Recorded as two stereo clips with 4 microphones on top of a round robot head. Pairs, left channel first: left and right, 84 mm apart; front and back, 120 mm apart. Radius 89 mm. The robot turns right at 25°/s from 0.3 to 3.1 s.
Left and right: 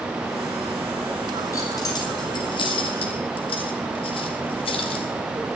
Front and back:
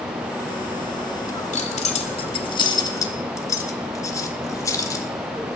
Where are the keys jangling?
25° left, 1.8 m; by 5.1 s 65° left, 1.8 m.